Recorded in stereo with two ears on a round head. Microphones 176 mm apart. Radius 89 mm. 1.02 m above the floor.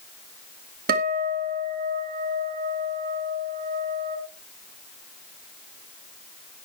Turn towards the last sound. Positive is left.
turn(degrees=-50)  # may be behind; listen again after turning